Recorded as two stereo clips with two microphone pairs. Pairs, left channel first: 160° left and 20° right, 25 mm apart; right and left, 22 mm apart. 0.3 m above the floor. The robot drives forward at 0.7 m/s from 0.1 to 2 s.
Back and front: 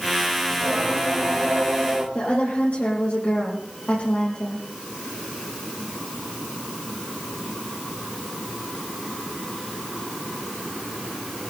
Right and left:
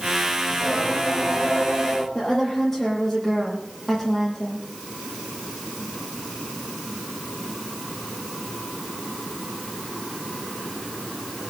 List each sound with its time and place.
0.5 s singing: 50° right, 7 m; by 2.0 s 55° right, 6.5 m
2.1 s a woman speaking: 165° right, 9 m